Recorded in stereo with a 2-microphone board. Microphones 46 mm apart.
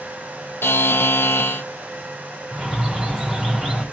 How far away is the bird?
About 5 m.